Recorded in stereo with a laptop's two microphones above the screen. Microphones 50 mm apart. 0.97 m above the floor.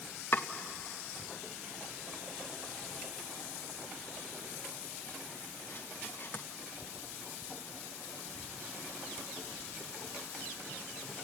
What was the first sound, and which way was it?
Chopping, 50° left (ahead or behind).